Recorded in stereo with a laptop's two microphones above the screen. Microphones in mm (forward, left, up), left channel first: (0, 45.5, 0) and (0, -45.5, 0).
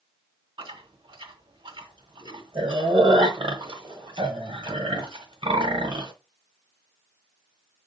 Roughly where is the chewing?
Right.